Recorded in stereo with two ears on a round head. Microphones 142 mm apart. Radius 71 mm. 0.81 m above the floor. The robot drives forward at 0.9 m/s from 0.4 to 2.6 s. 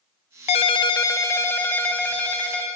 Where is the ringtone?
45° left (ahead or behind), 0.5 m; by 2.7 s 10° left (ahead or behind), 2 m.